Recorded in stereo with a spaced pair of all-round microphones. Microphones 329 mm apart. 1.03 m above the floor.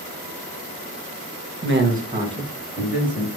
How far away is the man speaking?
About 1.0 m.